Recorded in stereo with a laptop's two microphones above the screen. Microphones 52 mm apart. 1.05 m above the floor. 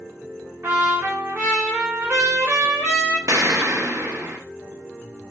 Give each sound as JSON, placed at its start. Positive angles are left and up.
{"t": 0.6, "sound": "a trumpet", "side_deg": -45, "distance_m": 0.7}
{"t": 3.3, "sound": "an explosion", "side_deg": -70, "distance_m": 0.5}